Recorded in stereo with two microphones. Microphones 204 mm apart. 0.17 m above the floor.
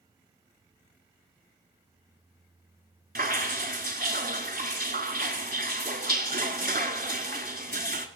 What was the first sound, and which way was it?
Dripping, 50° right (ahead or behind).